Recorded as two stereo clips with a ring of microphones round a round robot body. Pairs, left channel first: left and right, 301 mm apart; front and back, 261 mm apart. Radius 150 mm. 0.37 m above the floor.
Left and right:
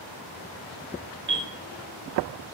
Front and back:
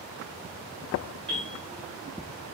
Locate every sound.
1.3 s a bell: 80° right, 1.1 m